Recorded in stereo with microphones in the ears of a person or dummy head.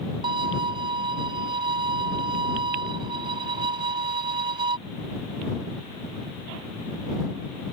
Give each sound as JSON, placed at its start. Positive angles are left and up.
{"t": 0.2, "sound": "a violin", "side_deg": -30}